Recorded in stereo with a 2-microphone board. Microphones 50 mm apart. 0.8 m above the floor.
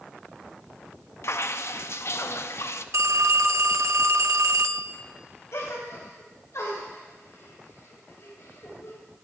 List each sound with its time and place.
1.2 s dripping: 60° left (ahead or behind), 0.5 m
2.9 s a phone ringing: 70° right (ahead or behind), 0.6 m
5.5 s a gasp: 70° left (ahead or behind), 3.5 m